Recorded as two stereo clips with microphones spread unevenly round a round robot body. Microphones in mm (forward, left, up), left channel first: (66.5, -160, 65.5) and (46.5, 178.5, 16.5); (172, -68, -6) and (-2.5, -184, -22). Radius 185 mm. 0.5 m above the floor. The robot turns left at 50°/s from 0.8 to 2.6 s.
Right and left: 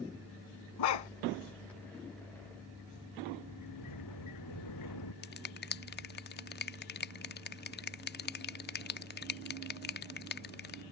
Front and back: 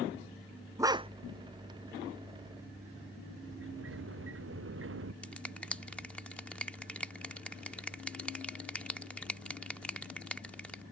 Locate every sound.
0.8 s a dog barking: 70° right; by 1.1 s 85° right
3.4 s a sliding door: 130° right
5.2 s a finger snap: 55° right